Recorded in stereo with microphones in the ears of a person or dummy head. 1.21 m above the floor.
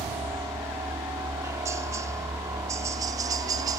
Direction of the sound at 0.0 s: 15° right (ahead or behind).